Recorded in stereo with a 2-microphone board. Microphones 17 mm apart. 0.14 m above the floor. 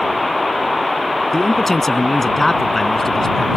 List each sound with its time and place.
1.3 s a man speaking: 20° left (ahead or behind)